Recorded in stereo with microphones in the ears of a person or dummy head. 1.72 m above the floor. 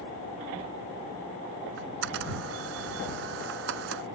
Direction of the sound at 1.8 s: 65° right (ahead or behind).